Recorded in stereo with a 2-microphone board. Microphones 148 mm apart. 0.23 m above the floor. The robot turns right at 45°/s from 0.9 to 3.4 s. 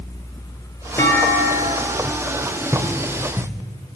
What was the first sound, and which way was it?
A clunk, 160° left.